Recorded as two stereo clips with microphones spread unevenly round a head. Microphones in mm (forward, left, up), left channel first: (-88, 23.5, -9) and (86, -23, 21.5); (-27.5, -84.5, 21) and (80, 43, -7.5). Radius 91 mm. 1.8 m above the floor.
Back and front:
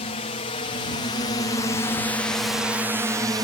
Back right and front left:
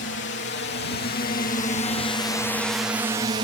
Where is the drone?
145° right; by 3.4 s 55° left.